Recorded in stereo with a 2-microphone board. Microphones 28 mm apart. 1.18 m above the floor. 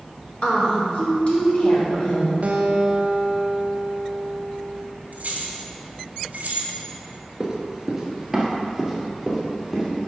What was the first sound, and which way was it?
A woman speaking, 45° left (ahead or behind).